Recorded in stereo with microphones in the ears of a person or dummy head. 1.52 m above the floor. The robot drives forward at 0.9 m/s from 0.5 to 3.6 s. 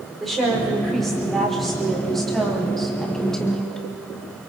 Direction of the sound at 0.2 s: Centre (ahead or behind).